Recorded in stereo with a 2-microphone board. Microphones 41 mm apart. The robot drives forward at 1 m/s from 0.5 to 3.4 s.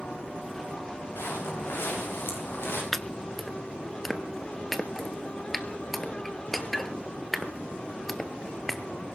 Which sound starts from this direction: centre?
Chopping, at 2.9 s.